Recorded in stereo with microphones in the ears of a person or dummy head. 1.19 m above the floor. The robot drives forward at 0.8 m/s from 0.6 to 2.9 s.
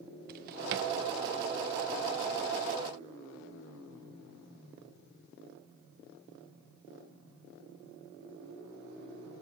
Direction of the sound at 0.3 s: 50° right (ahead or behind).